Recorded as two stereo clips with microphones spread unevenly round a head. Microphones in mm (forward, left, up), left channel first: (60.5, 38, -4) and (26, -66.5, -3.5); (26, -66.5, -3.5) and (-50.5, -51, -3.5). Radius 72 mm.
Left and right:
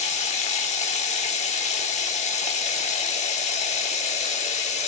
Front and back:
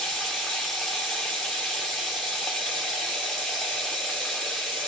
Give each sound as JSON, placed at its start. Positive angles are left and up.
{"t": 0.0, "sound": "running water", "azimuth_deg": 75, "distance_m": 1.1}